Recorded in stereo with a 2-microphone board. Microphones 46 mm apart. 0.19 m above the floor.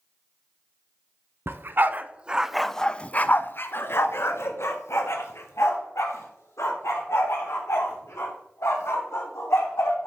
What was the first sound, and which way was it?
A dog barking, 55° right (ahead or behind).